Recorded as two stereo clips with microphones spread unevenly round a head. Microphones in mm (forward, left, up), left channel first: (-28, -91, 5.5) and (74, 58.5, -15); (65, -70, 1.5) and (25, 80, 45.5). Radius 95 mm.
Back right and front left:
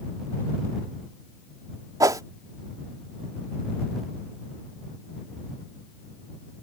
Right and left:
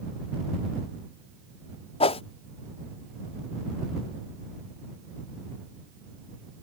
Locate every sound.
2.0 s a whoosh: 15° right